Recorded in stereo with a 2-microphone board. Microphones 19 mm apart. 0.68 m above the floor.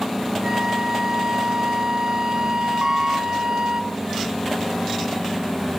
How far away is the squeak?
About 0.8 m.